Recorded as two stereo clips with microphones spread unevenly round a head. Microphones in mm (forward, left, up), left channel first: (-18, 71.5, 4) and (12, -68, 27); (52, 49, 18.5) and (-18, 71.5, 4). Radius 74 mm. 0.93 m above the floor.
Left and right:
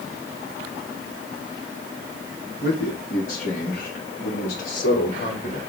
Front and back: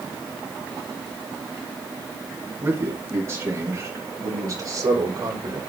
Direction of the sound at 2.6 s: 110° left.